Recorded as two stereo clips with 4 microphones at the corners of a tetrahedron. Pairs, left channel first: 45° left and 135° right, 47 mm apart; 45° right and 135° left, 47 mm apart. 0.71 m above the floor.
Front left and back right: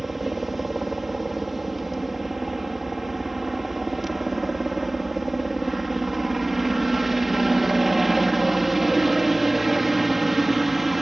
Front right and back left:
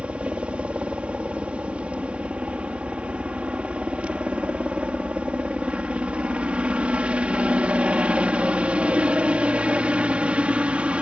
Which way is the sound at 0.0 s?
140° left.